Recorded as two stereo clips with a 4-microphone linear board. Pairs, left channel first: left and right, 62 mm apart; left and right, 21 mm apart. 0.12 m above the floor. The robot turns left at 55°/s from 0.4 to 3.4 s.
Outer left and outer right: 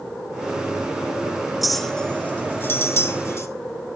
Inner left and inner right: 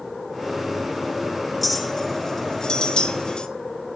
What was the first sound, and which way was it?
A clink, 5° right (ahead or behind).